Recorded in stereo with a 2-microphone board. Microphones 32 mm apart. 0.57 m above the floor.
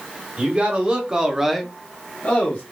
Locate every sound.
0.4 s a man speaking: 35° right (ahead or behind), 1.6 m; by 2.6 s 40° left (ahead or behind), 1.2 m